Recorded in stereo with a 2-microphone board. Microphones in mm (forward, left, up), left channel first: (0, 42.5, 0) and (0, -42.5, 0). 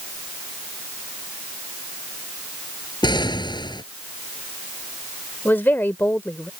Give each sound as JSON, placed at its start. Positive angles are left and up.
{"t": 3.0, "sound": "an explosion", "side_deg": 60}
{"t": 5.5, "sound": "a woman speaking", "side_deg": 25}